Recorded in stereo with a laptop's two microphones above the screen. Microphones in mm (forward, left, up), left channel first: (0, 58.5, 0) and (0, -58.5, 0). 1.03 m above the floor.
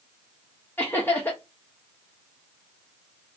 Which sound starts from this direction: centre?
Laughter, at 0.8 s.